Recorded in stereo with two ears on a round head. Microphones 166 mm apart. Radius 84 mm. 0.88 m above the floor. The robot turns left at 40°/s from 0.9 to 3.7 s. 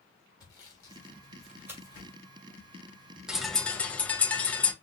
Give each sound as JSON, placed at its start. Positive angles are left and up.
{"t": 0.4, "sound": "sawing", "side_deg": 20, "distance_m": 1.9}
{"t": 3.3, "sound": "a bird", "side_deg": -5, "distance_m": 0.7}